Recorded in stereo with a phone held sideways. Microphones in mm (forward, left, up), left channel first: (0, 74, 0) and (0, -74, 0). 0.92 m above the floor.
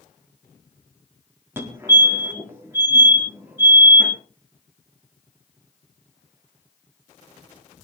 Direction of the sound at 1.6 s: 15° right (ahead or behind).